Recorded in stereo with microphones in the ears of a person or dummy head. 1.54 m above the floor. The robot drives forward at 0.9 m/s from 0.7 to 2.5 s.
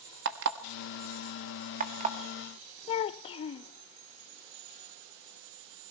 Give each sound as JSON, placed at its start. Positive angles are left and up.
{"t": 0.2, "sound": "an alarm clock", "side_deg": -55, "distance_m": 1.3}
{"t": 2.9, "sound": "a child speaking", "side_deg": 30, "distance_m": 0.5}